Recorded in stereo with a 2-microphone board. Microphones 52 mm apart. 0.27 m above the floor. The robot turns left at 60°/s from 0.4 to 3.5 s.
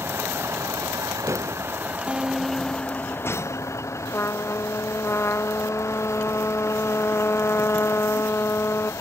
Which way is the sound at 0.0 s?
50° right (ahead or behind).